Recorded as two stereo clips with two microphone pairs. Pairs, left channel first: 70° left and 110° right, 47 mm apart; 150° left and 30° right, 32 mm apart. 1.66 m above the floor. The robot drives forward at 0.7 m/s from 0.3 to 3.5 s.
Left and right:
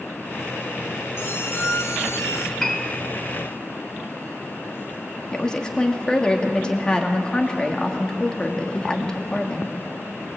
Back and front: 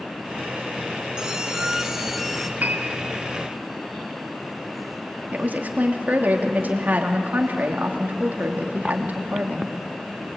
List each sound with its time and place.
1.2 s a squeak: 35° left, 1.8 m; by 2.5 s 65° left, 1.2 m
2.6 s a piano: 15° right, 2.5 m
5.3 s a woman speaking: 5° right, 2.5 m